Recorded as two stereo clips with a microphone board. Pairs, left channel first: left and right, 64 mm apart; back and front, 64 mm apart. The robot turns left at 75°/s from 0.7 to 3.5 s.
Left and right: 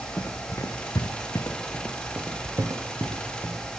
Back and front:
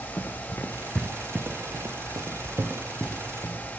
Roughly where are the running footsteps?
Behind left.